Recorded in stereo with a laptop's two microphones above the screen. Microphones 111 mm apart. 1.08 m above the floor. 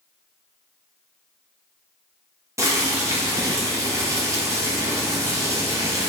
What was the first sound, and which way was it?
Boiling, 30° right (ahead or behind).